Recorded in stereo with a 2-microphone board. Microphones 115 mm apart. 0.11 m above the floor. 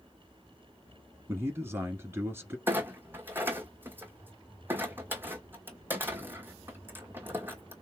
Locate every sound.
1.3 s a man speaking: 20° right (ahead or behind), 1.3 m
2.7 s a clunk: 20° right (ahead or behind), 1.4 m